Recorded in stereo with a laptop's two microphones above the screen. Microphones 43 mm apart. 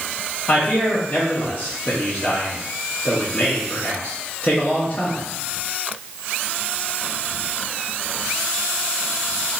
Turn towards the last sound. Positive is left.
turn(degrees=30)  # may be behind; listen again after turning